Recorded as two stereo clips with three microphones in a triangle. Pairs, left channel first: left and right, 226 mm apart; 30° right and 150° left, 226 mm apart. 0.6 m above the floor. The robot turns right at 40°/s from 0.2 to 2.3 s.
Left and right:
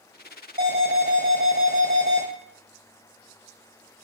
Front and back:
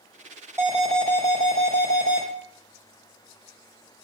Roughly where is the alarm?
Behind right.